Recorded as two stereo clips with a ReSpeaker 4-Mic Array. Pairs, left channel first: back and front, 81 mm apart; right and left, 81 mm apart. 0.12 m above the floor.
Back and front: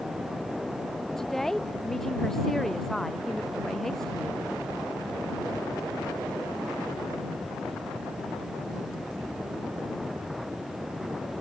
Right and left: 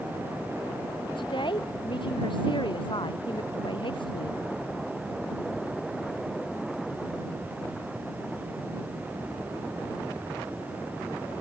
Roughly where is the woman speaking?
Right.